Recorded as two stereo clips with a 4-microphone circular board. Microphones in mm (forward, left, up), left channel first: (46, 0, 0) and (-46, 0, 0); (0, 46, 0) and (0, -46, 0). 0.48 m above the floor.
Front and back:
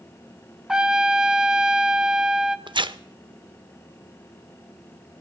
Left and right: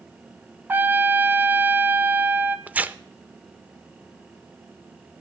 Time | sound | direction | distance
0.7 | a trumpet | 110° right | 0.8 m
2.7 | tearing paper | 160° right | 0.5 m